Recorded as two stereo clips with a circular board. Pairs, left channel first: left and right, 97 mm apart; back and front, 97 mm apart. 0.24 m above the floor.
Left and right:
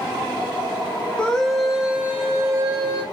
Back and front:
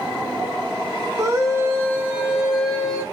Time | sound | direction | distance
1.2 | a scream | 20° left | 1.0 m